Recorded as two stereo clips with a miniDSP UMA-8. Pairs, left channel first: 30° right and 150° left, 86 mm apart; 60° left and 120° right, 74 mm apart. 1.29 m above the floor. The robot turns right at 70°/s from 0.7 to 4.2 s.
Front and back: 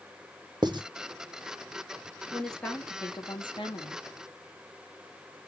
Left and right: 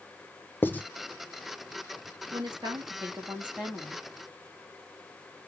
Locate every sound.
0.6 s writing: 120° left, 0.9 m; by 0.8 s 130° left, 0.9 m
2.3 s a woman speaking: 125° right, 2.5 m; by 4.0 s 5° right, 2.5 m